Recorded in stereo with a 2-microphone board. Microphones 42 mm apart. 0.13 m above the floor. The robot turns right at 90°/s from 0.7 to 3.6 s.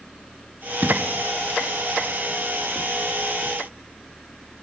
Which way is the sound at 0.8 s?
45° right (ahead or behind).